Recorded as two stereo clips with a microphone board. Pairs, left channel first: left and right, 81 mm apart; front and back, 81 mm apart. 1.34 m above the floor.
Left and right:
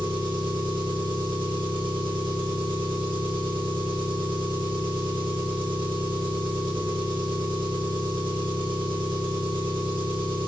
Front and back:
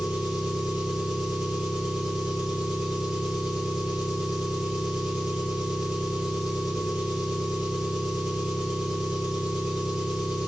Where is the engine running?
100° right, 3.5 m.